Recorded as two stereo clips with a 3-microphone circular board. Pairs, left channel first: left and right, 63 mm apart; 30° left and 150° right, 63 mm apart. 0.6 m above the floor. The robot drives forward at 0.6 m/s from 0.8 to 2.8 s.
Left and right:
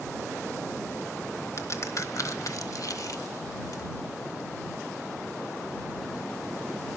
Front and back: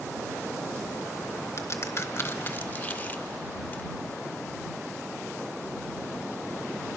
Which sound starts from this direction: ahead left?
A crack, at 1.6 s.